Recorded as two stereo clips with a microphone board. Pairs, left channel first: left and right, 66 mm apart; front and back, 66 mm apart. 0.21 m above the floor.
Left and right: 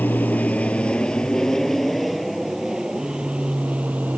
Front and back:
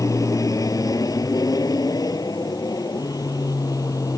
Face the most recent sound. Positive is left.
turn(degrees=-25)